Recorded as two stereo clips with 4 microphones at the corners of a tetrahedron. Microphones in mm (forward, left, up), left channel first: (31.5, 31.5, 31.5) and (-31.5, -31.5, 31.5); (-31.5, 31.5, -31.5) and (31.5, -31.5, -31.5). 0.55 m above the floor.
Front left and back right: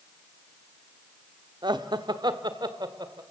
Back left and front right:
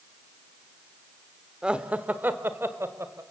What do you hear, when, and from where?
1.6 s laughter: 125° right, 1.2 m; by 3.2 s 100° right, 1.9 m